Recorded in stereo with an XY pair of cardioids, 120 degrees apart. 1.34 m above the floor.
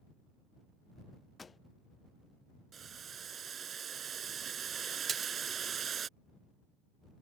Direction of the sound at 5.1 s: 40° right.